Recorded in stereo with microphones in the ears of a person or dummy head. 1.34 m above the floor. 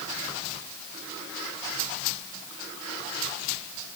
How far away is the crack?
I don't hear a crack.